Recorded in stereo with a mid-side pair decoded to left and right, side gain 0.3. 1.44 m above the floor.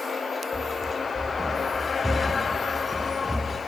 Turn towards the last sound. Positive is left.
turn(degrees=5)